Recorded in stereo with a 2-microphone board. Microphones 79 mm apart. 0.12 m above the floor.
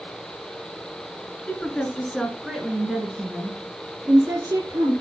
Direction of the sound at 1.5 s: 20° left (ahead or behind).